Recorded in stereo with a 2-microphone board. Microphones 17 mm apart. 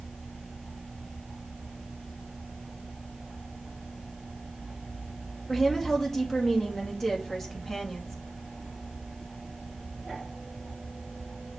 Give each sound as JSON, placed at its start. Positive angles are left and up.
{"t": 5.5, "sound": "a woman speaking", "side_deg": 30, "distance_m": 2.0}